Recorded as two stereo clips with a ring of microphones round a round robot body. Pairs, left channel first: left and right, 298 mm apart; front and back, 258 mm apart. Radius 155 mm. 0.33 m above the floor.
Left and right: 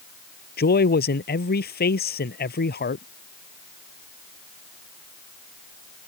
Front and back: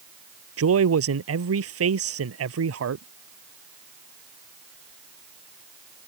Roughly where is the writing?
I don't hear writing.